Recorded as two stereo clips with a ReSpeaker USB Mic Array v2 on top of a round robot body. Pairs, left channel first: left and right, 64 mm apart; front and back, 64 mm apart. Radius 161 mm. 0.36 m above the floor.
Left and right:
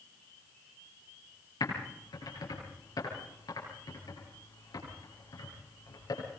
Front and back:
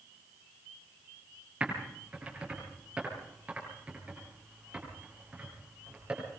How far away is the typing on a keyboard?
About 8.5 m.